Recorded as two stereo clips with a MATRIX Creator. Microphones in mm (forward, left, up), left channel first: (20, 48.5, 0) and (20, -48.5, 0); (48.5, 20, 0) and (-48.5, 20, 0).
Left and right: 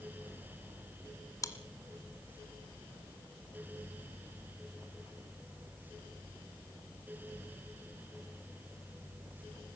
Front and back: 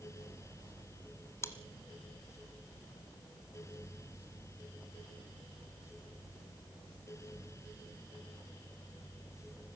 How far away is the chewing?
About 1.6 m.